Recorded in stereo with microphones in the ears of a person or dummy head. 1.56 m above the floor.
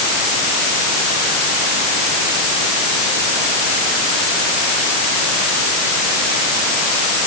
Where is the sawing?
No sawing in this recording.